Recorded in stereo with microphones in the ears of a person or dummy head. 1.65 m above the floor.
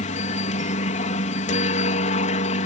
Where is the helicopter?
40° left (ahead or behind).